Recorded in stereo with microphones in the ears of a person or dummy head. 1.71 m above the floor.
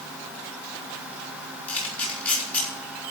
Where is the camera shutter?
10° left (ahead or behind), 5 m.